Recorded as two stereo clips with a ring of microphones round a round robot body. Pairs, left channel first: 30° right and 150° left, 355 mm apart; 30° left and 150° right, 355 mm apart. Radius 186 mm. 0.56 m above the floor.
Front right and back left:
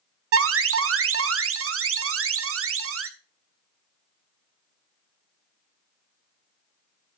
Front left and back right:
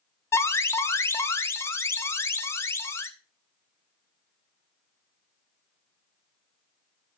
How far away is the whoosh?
I don't hear a whoosh.